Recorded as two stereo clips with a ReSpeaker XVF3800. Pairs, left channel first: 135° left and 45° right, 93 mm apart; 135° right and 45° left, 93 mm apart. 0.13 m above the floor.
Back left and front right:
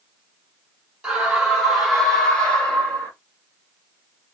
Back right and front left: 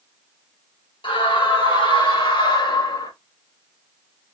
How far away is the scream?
About 3 m.